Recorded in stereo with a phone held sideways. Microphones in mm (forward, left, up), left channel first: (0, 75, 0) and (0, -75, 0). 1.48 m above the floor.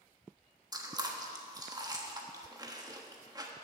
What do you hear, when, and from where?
0.7 s chewing: 25° right (ahead or behind), 1.2 m